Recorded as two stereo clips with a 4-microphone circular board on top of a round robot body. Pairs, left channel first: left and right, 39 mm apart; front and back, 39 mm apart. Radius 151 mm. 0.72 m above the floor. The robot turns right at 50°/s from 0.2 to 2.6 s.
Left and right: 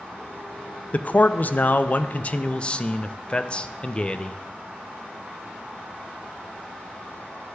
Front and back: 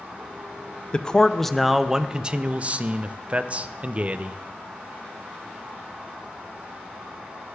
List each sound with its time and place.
0.9 s a man speaking: 55° left, 0.5 m; by 4.4 s 140° left, 0.5 m